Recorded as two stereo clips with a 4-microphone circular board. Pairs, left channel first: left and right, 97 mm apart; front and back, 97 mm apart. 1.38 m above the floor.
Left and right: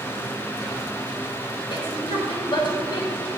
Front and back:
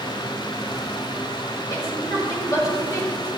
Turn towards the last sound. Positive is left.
turn(degrees=55)